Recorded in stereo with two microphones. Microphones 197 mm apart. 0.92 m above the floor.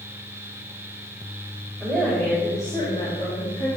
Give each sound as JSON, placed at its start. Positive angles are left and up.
{"t": 1.8, "sound": "a woman speaking", "side_deg": 0, "distance_m": 3.5}